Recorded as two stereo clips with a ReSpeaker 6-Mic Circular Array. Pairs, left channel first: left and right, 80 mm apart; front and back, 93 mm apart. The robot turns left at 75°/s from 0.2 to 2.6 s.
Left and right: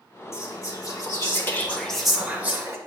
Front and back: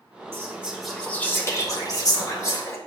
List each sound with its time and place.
0.3 s whispering: 130° left, 1.5 m; by 2.8 s 45° right, 1.5 m